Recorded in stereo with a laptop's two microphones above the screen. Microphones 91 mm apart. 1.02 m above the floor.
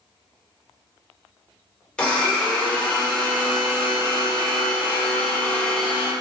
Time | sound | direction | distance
2.0 | a blender | 10° left (ahead or behind) | 0.7 m